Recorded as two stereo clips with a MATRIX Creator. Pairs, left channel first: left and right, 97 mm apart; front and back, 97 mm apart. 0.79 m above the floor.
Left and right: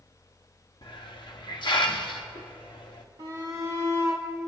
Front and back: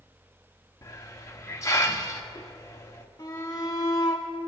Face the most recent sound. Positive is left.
turn(degrees=-55)